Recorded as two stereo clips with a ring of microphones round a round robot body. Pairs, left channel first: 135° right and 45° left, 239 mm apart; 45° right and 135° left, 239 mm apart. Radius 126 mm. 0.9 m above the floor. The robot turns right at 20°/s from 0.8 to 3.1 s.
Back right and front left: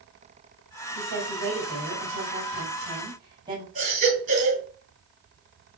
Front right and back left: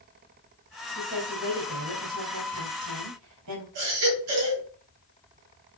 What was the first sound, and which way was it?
A woman speaking, 75° left.